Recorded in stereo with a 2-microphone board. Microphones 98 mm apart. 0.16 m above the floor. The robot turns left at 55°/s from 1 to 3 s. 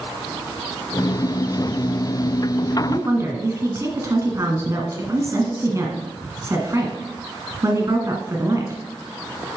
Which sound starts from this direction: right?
A woman speaking, at 2.9 s.